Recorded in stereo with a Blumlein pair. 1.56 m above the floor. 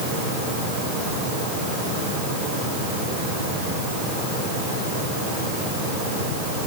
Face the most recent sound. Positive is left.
No sound to turn to.